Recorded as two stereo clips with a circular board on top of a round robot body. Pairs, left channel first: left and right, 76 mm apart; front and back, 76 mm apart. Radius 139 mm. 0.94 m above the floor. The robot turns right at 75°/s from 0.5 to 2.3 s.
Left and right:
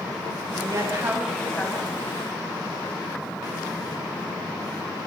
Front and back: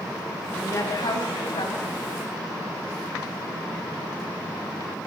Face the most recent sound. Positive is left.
turn(degrees=70)